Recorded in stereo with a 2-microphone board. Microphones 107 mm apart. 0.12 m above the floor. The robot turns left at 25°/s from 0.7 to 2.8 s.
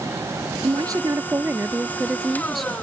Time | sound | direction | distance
0.6 | a woman speaking | 130° right | ?